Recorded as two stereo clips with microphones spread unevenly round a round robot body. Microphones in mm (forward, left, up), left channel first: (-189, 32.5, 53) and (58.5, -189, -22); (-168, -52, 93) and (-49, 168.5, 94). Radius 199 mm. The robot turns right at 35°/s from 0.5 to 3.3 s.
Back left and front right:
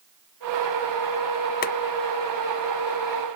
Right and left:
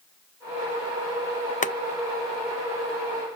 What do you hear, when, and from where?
1.6 s boiling: 155° right, 0.6 m; by 1.7 s 150° right, 0.6 m